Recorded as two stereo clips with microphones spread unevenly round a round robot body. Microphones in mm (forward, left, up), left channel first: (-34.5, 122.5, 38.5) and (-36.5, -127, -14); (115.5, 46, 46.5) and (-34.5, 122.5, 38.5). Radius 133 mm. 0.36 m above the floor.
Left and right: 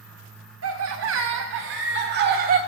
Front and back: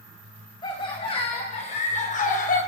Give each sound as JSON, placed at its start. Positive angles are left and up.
{"t": 0.6, "sound": "laughter", "azimuth_deg": -95, "distance_m": 2.5}